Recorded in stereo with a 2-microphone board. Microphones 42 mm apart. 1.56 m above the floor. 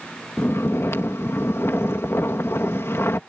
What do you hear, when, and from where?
0.4 s snoring: 75° left (ahead or behind)